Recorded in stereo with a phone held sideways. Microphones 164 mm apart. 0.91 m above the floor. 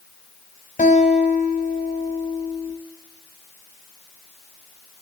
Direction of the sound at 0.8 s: 50° left (ahead or behind).